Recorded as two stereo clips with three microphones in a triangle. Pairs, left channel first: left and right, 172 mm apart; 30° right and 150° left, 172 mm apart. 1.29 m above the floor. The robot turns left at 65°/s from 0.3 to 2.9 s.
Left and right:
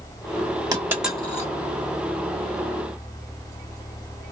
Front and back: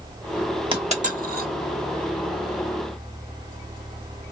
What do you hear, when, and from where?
0.7 s a dropped coin: 155° right, 1.2 m; by 1.5 s 155° left, 1.2 m